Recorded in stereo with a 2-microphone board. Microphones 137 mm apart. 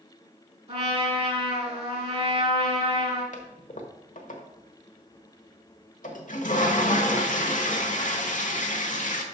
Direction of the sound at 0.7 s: 50° right (ahead or behind).